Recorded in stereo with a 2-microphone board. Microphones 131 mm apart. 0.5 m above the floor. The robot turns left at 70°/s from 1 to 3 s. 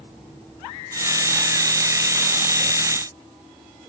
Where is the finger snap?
I don't hear a finger snap.